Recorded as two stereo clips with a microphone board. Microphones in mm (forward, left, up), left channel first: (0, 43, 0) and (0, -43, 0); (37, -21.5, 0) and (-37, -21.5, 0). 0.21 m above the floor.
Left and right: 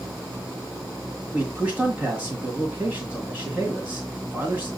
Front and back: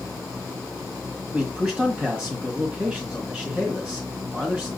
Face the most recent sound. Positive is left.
turn(degrees=-125)